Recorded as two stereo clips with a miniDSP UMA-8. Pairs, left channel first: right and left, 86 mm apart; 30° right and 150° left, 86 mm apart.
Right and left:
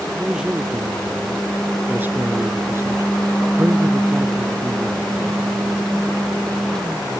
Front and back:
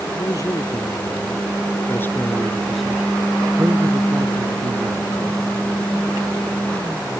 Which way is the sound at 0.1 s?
10° left.